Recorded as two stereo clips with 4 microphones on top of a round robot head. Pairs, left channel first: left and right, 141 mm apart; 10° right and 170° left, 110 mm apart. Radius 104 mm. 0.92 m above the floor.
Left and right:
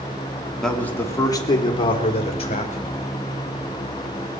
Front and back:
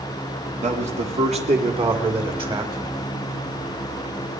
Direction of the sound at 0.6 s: 175° left.